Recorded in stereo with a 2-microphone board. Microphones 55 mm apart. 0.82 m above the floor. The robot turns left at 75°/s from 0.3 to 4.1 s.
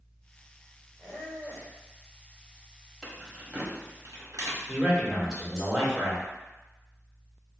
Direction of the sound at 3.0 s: 10° left (ahead or behind).